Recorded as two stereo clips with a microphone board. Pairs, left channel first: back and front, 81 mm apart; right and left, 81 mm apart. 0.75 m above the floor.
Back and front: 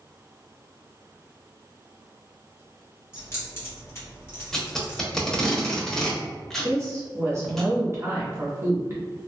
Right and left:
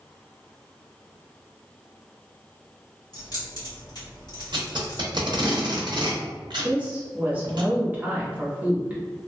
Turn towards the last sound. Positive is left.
turn(degrees=30)